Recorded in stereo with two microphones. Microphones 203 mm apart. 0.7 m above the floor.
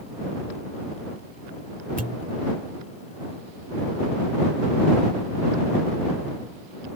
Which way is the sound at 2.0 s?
40° right (ahead or behind).